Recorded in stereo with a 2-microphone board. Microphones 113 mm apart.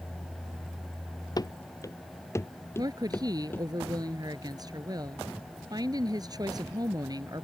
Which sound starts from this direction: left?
Running footsteps, at 1.4 s.